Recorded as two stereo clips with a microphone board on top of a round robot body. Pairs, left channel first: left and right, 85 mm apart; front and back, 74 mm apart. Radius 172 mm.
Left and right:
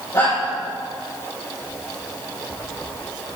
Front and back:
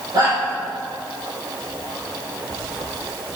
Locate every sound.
0.1 s a shout: 140° left, 5.5 m